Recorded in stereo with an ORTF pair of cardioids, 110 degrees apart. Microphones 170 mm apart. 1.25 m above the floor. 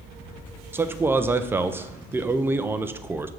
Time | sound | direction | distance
0.7 | a man speaking | 15° right | 0.6 m